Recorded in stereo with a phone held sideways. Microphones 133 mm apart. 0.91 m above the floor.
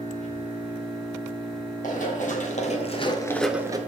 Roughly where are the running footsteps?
Left.